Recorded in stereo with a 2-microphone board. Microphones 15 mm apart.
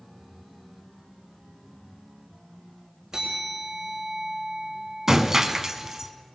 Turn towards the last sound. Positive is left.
turn(degrees=-30)  # may be behind; listen again after turning